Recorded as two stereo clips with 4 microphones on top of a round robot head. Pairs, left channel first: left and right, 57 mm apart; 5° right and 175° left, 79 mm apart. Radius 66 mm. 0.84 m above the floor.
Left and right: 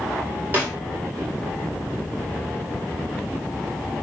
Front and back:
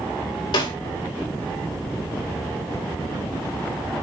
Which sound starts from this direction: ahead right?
A snare drum, at 0.5 s.